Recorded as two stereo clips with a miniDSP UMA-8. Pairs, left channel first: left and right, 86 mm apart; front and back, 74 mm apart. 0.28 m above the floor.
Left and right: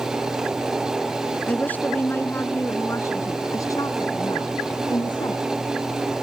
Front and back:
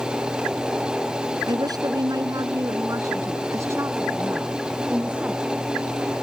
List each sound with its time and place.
1.5 s a woman speaking: 160° left; by 5.5 s 110° left